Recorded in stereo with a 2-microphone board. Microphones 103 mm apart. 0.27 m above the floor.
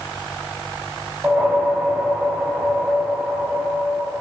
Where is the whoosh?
10° right (ahead or behind), 1.0 m.